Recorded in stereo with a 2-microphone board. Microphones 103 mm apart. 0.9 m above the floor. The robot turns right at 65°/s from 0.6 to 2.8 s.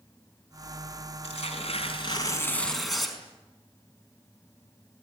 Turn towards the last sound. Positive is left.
turn(degrees=180)